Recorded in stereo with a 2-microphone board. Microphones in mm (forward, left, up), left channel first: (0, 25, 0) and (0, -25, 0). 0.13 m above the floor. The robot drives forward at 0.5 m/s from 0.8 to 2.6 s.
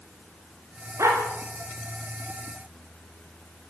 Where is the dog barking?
65° right (ahead or behind), 6.5 m.